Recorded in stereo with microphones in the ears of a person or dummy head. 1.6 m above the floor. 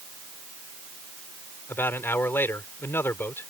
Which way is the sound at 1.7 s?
15° left (ahead or behind).